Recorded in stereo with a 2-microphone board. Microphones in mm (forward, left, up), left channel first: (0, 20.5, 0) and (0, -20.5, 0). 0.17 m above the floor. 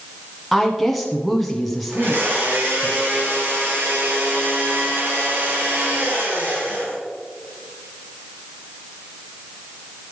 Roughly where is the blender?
Right.